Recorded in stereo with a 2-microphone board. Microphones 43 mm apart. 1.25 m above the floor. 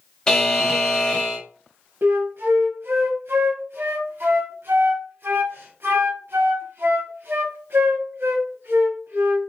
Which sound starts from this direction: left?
A buzzer, at 0.3 s.